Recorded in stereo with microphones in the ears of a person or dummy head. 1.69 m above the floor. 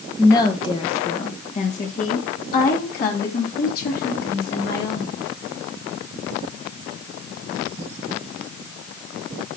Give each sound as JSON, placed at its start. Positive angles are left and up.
{"t": 0.2, "sound": "a woman speaking", "side_deg": 20, "distance_m": 1.6}